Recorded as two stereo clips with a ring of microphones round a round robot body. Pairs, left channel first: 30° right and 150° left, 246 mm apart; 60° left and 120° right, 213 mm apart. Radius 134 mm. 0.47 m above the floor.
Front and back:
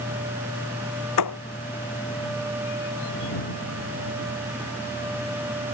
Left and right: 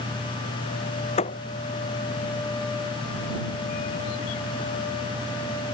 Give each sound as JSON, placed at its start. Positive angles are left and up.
{"t": 1.2, "sound": "a thud", "azimuth_deg": -5}